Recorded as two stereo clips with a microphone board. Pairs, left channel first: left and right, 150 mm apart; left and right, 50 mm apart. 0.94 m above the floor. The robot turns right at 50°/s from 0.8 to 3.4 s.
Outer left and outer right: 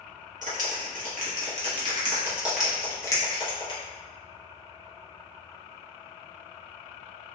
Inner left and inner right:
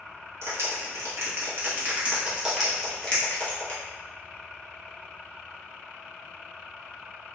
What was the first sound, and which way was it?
A clap, 60° right (ahead or behind).